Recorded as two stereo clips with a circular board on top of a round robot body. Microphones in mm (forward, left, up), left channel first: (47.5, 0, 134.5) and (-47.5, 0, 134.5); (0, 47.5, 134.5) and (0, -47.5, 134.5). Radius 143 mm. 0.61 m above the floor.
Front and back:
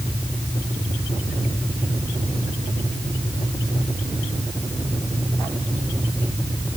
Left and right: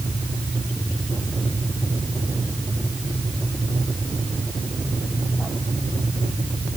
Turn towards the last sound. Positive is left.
No sound to turn to.